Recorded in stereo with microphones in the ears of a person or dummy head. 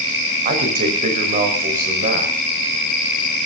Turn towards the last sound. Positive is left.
turn(degrees=-40)  # may be behind; listen again after turning